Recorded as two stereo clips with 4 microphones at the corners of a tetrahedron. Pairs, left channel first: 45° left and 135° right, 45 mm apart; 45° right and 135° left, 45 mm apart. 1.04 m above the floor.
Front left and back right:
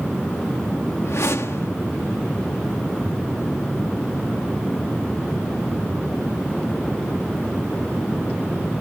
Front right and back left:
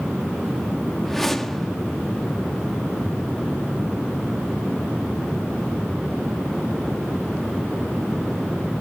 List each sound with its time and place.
1.1 s a whoosh: 40° left, 1.6 m